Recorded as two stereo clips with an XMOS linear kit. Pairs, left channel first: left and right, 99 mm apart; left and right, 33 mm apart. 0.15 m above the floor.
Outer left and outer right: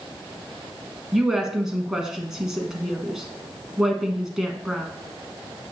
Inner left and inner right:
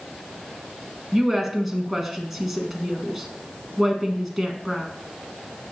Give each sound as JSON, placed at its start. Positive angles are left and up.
{"t": 1.1, "sound": "a woman speaking", "side_deg": -5, "distance_m": 1.1}